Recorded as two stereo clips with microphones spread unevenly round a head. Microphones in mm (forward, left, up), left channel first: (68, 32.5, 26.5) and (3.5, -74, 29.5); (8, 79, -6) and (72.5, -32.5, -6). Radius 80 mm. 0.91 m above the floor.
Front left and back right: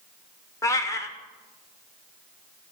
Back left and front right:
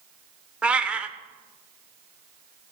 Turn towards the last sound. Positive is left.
turn(degrees=15)